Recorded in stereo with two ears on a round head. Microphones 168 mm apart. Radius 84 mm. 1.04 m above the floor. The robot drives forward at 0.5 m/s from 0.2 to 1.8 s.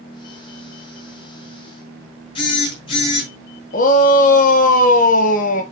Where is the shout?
45° left (ahead or behind), 0.8 m.